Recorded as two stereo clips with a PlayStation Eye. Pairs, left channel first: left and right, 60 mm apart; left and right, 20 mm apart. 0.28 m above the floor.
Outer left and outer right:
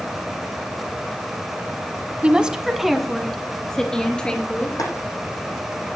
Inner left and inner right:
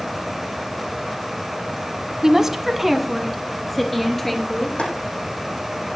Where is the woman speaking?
20° right (ahead or behind), 1.6 m; by 4.8 s 15° left (ahead or behind), 4.5 m.